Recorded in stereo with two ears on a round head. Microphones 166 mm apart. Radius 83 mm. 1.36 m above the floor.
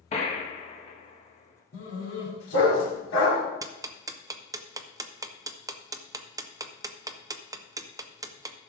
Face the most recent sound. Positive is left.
turn(degrees=-15)  # may be behind; listen again after turning